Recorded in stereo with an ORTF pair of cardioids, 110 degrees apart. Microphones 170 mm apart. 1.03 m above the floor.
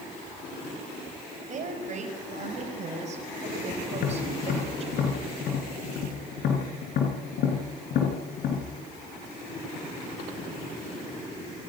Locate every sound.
1.5 s a woman speaking: 45° right, 5.5 m; by 4.9 s 40° right, 4 m
3.9 s tapping: 65° left, 4.5 m